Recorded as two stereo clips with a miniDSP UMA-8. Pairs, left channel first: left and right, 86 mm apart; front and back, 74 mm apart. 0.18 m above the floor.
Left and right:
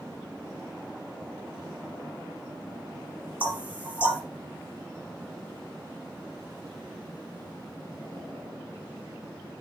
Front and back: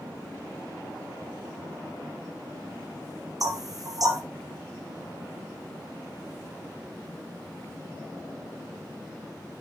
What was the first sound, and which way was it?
Knocking, 165° right.